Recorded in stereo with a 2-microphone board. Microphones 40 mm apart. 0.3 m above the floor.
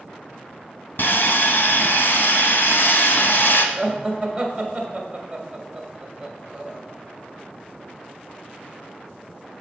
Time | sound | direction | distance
1.0 | sawing | 70° left (ahead or behind) | 0.7 m
3.8 | laughter | 25° right (ahead or behind) | 1.3 m